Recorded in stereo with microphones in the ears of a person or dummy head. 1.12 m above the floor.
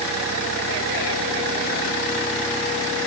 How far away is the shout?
I don't hear a shout.